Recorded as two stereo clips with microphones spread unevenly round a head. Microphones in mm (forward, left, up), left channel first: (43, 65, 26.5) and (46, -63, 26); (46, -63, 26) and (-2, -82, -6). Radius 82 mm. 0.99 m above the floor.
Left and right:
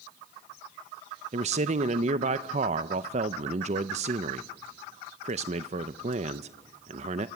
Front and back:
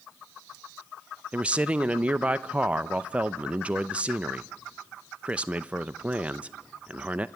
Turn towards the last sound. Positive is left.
turn(degrees=-120)